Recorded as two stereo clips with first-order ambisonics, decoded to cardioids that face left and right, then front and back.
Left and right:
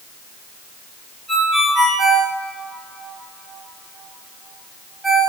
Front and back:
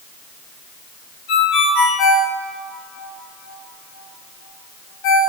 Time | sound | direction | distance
1.3 | a ringtone | 5° right | 2 m